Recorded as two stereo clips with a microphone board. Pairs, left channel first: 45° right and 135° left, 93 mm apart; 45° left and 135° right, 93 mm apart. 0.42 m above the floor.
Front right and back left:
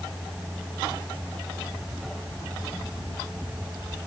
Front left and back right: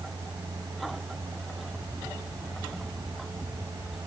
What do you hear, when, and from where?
Only background noise.